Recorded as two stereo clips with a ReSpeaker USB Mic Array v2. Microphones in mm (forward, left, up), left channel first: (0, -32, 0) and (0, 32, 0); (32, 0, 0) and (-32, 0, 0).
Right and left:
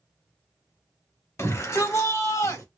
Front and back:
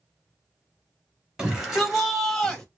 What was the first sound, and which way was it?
A shout, 105° right.